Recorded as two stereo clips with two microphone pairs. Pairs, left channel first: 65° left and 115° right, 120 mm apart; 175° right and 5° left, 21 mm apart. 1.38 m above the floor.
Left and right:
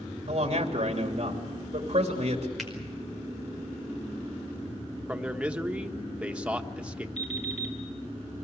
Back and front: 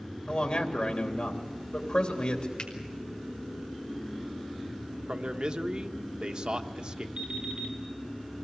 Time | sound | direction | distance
0.3 | a man speaking | 145° right | 3 m
2.6 | a finger snap | 155° left | 5 m
5.1 | a man speaking | 35° right | 1.3 m
7.2 | an alarm clock | 50° left | 5.5 m